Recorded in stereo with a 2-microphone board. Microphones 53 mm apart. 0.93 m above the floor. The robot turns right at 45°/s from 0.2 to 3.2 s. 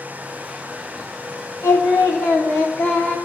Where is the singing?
90° left, 3 m; by 3.2 s 155° left, 3 m.